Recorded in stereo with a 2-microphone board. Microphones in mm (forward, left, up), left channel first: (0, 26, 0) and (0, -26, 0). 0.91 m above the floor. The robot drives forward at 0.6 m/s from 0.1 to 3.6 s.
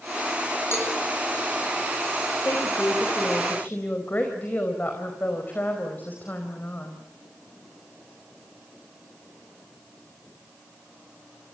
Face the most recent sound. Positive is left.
turn(degrees=40)  # may be behind; listen again after turning